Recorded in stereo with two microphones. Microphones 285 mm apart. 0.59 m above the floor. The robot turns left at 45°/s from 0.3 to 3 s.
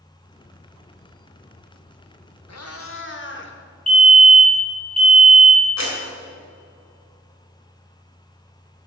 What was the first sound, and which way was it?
A cat meowing, 65° left (ahead or behind).